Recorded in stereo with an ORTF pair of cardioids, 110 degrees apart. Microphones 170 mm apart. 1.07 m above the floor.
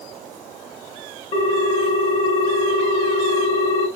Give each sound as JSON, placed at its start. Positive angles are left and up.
{"t": 1.3, "sound": "a ringtone", "azimuth_deg": 40, "distance_m": 0.7}